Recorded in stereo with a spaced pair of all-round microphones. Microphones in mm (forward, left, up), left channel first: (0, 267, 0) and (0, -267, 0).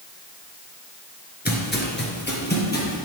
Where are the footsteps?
15° left (ahead or behind), 1.4 m.